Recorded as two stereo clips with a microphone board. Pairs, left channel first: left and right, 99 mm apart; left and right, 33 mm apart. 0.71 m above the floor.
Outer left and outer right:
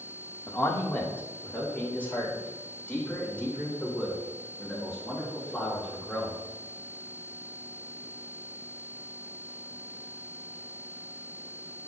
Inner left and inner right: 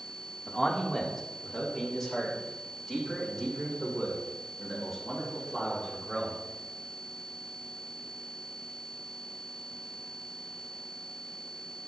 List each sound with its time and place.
0.5 s a man speaking: 25° left (ahead or behind), 1.4 m; by 6.4 s 10° left (ahead or behind), 6 m